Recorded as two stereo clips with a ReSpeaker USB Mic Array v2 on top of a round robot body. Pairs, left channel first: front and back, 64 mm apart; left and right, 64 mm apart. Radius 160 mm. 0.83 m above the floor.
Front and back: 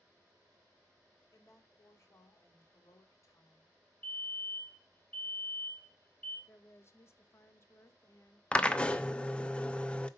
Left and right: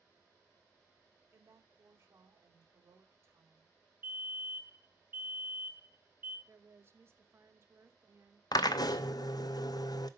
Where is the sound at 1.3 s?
40° right, 2.5 m.